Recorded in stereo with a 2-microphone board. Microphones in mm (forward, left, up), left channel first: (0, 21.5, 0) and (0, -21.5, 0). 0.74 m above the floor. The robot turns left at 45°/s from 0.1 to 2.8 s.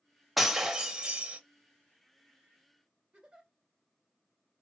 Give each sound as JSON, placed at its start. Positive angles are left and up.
{"t": 0.4, "sound": "breaking glass", "azimuth_deg": -5, "distance_m": 0.6}
{"t": 3.1, "sound": "a giggle", "side_deg": -25, "distance_m": 1.6}